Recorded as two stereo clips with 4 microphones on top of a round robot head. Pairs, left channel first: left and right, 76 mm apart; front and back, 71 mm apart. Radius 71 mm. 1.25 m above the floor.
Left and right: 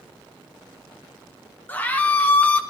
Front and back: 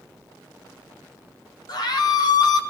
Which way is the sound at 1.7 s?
20° left.